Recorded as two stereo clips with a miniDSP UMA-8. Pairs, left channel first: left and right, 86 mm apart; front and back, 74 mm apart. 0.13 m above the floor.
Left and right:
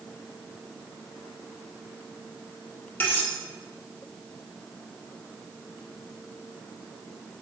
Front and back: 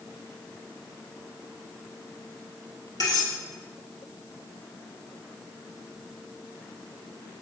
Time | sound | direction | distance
3.0 | cutlery clinking | 25° left | 1.7 m